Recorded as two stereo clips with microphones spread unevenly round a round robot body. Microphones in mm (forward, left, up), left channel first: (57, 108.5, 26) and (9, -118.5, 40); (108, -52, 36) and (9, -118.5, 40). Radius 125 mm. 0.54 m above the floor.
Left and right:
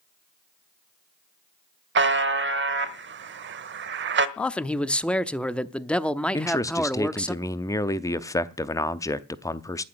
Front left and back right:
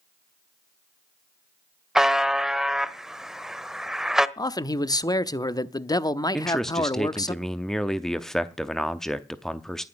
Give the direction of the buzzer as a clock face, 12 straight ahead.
2 o'clock.